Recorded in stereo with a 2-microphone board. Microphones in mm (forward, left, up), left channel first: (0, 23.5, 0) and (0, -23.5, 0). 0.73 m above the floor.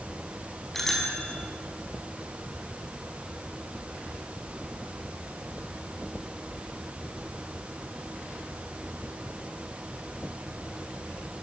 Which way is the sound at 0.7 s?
5° left (ahead or behind).